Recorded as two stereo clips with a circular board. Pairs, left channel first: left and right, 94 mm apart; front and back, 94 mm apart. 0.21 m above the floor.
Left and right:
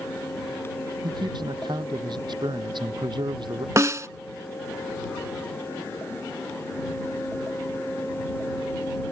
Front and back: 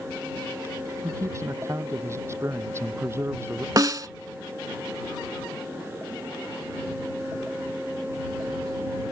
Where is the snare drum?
140° right.